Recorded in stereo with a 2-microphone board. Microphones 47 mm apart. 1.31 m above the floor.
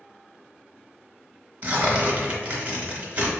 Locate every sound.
1.6 s tearing paper: 35° right (ahead or behind), 1.1 m